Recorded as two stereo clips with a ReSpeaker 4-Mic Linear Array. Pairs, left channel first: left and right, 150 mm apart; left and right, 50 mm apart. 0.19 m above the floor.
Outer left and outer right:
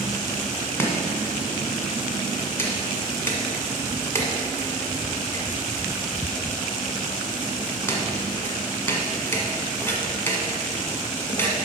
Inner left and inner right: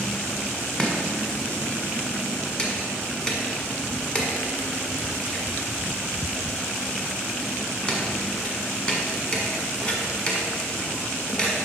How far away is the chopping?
About 1.5 m.